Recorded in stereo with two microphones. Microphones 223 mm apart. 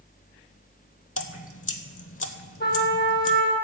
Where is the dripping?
80° left, 0.8 m.